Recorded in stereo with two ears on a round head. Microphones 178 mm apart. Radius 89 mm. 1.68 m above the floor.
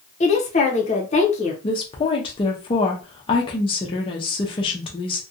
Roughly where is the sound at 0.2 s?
Left.